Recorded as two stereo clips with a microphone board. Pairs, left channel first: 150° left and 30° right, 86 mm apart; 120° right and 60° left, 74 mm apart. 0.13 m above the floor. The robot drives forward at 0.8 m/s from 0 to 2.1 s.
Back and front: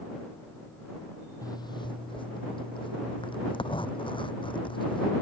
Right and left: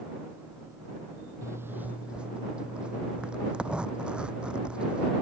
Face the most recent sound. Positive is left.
turn(degrees=135)